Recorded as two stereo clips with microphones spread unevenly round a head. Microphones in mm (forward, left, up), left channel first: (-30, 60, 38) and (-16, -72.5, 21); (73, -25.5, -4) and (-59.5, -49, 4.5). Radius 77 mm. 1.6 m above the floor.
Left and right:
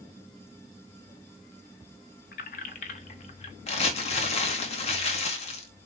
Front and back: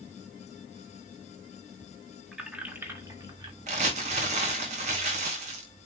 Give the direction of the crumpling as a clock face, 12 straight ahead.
7 o'clock.